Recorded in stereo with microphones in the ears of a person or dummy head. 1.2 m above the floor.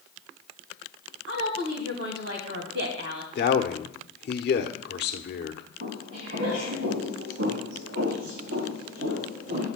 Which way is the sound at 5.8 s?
60° right (ahead or behind).